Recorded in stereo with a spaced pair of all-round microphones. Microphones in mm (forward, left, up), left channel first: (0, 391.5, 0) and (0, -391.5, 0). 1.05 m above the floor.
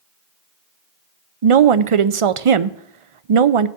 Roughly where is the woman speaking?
Right.